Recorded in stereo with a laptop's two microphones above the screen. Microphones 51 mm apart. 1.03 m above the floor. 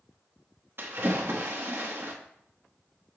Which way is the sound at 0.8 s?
55° right (ahead or behind).